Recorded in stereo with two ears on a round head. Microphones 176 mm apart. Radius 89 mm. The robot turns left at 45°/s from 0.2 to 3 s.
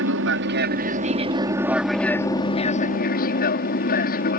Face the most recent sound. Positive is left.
turn(degrees=130)